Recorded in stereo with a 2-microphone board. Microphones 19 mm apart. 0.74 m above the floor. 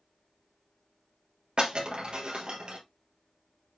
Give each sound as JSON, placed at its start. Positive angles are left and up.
{"t": 1.6, "sound": "breaking glass", "side_deg": -55, "distance_m": 3.0}